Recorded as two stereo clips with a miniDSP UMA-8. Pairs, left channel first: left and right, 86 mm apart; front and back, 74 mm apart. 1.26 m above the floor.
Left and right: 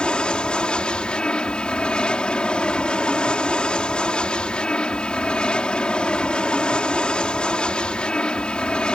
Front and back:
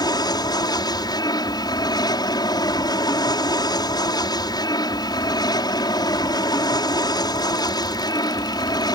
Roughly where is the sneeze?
No sneeze in this recording.